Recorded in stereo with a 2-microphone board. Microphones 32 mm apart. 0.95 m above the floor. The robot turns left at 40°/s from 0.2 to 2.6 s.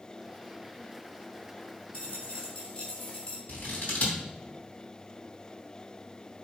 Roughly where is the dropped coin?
Left.